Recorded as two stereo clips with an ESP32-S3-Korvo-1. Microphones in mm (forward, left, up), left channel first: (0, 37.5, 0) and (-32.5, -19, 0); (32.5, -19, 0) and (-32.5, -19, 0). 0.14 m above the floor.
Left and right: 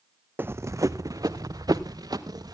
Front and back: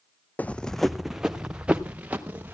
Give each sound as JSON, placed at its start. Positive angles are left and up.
{"t": 0.4, "sound": "running footsteps", "azimuth_deg": -65, "distance_m": 0.5}